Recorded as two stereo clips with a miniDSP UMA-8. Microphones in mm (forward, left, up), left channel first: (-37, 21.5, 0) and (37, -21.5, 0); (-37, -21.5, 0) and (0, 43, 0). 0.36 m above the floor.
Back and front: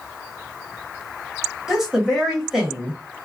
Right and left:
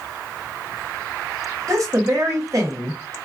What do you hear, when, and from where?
1.7 s a woman speaking: 55° left, 1.4 m